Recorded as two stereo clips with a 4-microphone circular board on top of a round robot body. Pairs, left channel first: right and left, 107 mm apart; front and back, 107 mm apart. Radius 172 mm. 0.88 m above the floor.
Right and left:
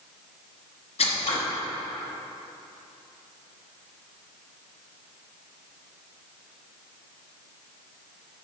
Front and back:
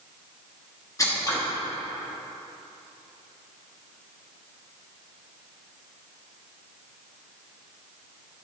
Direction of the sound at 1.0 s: 65° right.